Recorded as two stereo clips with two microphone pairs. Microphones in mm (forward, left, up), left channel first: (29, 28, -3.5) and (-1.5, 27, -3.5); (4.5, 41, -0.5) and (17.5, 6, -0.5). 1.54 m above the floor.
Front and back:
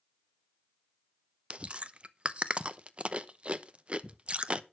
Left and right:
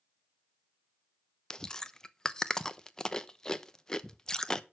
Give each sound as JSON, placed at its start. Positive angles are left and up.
{"t": 1.5, "sound": "chewing", "azimuth_deg": 175, "distance_m": 0.7}